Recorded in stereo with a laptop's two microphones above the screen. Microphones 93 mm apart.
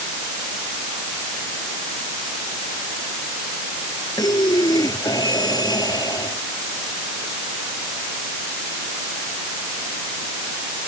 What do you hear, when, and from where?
4.2 s breathing: 45° left (ahead or behind)